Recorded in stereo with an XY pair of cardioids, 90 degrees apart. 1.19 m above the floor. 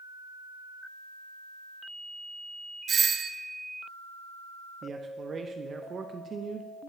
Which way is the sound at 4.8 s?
50° right.